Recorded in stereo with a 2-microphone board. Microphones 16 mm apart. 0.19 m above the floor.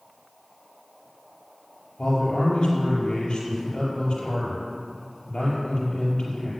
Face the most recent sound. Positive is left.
turn(degrees=55)  # may be behind; listen again after turning